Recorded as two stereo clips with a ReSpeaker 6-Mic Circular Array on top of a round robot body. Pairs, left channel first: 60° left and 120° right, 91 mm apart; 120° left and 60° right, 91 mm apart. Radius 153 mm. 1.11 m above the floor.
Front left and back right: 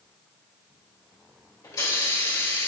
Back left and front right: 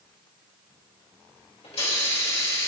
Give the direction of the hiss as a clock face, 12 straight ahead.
8 o'clock.